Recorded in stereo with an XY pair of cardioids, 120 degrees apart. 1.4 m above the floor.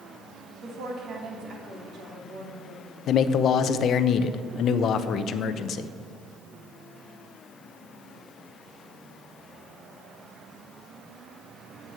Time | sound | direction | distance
0.6 | a woman speaking | 60° right | 2.5 m
3.1 | a man speaking | 60° left | 0.7 m